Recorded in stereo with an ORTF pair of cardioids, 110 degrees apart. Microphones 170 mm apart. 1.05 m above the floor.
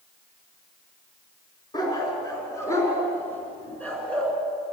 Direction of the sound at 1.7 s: 25° left.